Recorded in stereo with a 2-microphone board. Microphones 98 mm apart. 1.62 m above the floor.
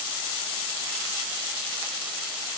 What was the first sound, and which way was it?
Only background noise.